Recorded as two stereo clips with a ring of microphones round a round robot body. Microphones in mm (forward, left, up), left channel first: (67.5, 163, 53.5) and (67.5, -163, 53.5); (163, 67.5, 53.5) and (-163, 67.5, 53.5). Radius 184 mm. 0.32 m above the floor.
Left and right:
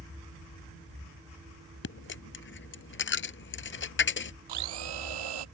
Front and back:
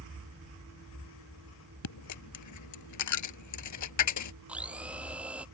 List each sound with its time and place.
1.8 s a dropped coin: 35° left
4.5 s a blender: 95° right